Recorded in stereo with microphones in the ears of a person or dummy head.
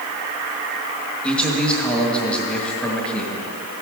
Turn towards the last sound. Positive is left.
turn(degrees=5)  # may be behind; listen again after turning